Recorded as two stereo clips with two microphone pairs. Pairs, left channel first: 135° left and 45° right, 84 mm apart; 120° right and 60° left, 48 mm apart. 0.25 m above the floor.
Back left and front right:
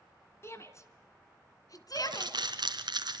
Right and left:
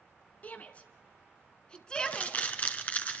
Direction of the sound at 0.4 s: 170° right.